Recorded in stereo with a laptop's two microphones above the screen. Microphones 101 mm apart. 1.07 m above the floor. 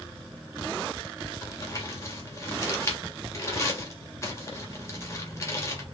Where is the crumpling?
30° left (ahead or behind), 2 m.